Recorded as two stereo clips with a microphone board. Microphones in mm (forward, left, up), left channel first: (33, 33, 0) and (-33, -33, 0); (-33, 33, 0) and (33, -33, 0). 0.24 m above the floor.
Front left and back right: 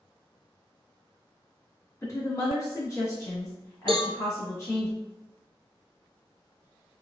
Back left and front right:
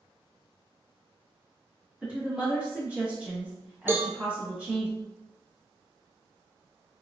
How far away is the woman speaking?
About 1.8 m.